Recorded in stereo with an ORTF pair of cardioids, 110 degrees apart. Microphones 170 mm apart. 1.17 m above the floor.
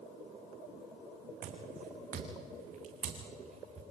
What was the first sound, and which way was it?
Footsteps, 60° right.